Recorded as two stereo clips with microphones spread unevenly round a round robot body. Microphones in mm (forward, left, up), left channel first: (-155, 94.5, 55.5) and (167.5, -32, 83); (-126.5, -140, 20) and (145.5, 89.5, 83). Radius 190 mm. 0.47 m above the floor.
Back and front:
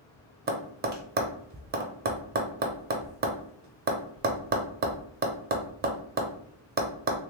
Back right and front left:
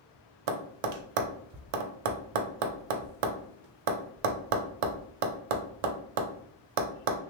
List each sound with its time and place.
0.5 s tapping: 40° left, 0.5 m